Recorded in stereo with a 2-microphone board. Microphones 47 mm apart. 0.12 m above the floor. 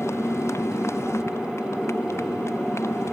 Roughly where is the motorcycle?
Left.